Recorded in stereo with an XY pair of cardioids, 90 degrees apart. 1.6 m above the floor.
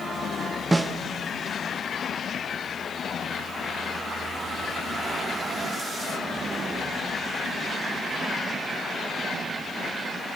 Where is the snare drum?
25° right, 1.4 m.